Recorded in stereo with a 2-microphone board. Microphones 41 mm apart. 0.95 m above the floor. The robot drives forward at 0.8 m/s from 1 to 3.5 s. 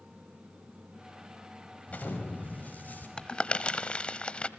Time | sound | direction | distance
1.9 | an explosion | 35° left (ahead or behind) | 5.5 m
3.2 | crumpling | 20° left (ahead or behind) | 1.3 m